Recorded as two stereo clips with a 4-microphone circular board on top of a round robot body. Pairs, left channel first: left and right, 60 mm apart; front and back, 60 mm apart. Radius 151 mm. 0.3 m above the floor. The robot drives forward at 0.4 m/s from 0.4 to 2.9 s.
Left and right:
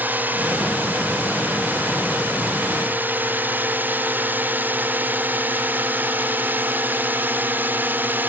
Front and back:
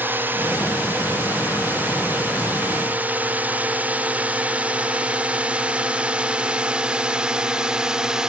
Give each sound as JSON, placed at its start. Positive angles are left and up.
{"t": 0.0, "sound": "a drone", "azimuth_deg": -140}